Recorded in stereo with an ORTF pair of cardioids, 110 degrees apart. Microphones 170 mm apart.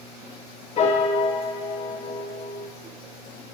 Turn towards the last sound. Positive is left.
turn(degrees=40)